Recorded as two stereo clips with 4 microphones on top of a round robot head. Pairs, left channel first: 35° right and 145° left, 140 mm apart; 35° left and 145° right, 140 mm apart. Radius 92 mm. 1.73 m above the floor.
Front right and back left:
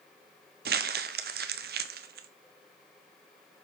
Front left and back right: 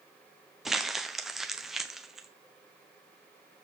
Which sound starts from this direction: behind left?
Crumpling, at 0.7 s.